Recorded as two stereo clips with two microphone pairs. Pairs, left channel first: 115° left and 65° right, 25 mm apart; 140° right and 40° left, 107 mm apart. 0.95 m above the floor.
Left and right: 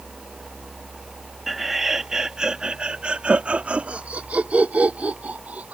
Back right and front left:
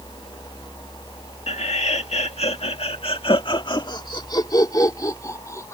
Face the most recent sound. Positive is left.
turn(degrees=-75)